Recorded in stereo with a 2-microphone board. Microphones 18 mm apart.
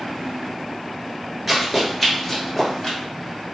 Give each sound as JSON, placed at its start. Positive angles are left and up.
{"t": 1.5, "sound": "running footsteps", "side_deg": -10, "distance_m": 1.2}